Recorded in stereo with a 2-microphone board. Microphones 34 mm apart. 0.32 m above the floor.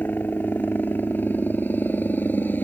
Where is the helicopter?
70° left (ahead or behind).